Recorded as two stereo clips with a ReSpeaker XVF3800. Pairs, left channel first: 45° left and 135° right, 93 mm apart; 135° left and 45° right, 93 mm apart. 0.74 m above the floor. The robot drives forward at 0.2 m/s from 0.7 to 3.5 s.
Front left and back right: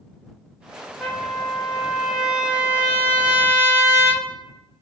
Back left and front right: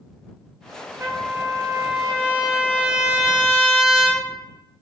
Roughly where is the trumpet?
Ahead right.